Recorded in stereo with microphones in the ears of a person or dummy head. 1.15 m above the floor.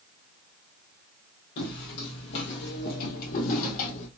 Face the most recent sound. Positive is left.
turn(degrees=40)  # may be behind; listen again after turning